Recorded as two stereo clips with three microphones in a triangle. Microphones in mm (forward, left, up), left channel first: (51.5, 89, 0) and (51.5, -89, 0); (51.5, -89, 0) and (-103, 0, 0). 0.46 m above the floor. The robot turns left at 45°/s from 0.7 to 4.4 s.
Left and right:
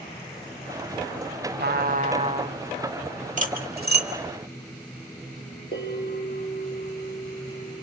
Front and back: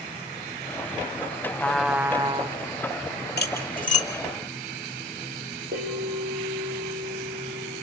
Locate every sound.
1.6 s a trumpet: 110° right, 0.7 m; by 2.6 s 155° right, 0.7 m
3.4 s cutlery clinking: 50° right, 1.2 m; by 4.1 s 80° right, 1.2 m
5.7 s a bell: 125° left, 4.5 m